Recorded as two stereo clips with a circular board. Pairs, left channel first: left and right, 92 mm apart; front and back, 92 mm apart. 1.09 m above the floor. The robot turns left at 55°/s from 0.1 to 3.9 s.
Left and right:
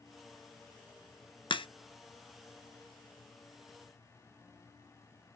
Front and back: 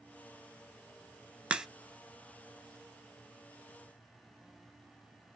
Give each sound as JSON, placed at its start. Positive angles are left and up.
{"t": 1.5, "sound": "a crack", "azimuth_deg": 105, "distance_m": 0.5}